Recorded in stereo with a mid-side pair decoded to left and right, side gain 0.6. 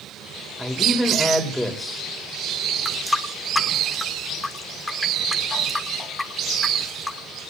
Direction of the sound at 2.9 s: 15° left.